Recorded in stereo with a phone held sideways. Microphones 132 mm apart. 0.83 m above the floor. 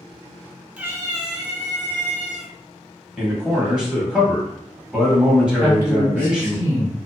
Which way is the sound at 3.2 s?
5° right (ahead or behind).